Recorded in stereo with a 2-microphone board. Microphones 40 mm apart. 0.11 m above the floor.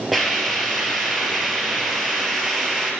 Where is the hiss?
Centre (ahead or behind), 1.9 m.